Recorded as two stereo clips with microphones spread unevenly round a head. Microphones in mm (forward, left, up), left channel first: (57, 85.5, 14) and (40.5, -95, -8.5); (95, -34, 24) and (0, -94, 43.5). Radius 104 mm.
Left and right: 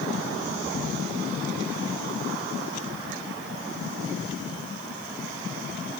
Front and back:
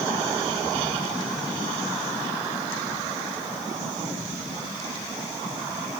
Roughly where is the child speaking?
No child speaking in this recording.